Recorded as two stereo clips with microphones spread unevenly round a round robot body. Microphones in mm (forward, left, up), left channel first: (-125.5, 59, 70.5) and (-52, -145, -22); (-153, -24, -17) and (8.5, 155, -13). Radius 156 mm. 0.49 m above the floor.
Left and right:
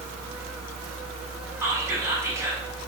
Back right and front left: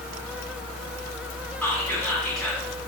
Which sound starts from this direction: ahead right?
Whispering, at 1.6 s.